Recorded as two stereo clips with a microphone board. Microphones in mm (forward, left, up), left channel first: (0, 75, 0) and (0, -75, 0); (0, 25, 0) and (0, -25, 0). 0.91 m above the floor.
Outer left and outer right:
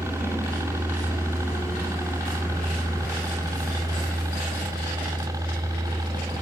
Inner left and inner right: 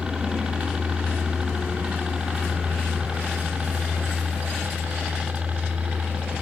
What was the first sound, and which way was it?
A helicopter, 20° right (ahead or behind).